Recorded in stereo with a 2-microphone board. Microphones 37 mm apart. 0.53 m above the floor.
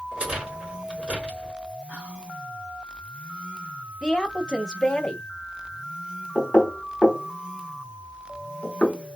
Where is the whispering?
50° right (ahead or behind), 1.1 m.